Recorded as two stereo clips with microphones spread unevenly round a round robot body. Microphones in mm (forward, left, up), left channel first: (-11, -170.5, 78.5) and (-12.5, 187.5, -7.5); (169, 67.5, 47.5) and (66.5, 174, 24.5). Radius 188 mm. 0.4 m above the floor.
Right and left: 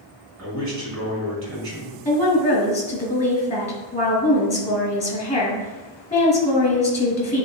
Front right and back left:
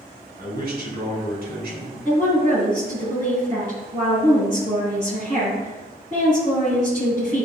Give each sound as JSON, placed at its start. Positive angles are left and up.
{"t": 0.4, "sound": "a man speaking", "azimuth_deg": 140, "distance_m": 4.0}
{"t": 2.0, "sound": "a woman speaking", "azimuth_deg": -165, "distance_m": 2.5}